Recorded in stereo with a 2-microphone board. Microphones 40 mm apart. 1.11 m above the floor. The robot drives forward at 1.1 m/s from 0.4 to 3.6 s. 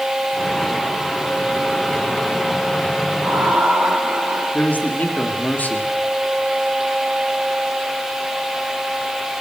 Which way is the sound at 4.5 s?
50° left (ahead or behind).